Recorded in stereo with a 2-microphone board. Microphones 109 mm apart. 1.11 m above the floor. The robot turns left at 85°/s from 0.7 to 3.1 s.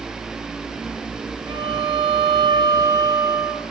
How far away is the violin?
About 1.6 m.